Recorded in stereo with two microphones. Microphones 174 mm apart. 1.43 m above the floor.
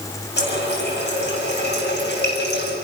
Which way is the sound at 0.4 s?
85° left.